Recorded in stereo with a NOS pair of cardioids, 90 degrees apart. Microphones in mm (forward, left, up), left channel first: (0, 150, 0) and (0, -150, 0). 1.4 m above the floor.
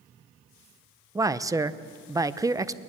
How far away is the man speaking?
About 0.8 m.